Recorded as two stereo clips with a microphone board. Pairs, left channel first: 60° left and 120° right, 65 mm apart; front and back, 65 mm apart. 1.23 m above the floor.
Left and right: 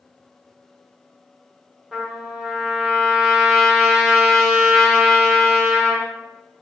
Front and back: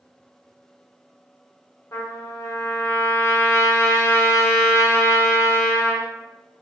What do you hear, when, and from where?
1.9 s a trumpet: 40° right, 1.3 m